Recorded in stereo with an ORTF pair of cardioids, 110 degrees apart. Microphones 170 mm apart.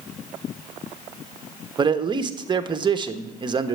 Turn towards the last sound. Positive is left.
turn(degrees=-25)